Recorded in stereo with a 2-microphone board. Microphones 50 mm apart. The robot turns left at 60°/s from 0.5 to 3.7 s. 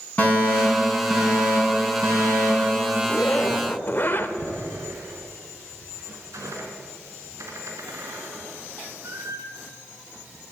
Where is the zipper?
125° left, 0.9 m; by 4.3 s 85° left, 0.9 m.